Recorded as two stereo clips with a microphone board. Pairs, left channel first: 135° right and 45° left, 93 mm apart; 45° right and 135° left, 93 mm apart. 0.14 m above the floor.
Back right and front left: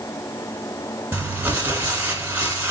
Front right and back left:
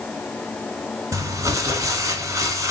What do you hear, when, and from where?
1.1 s crumpling: 105° left, 1.0 m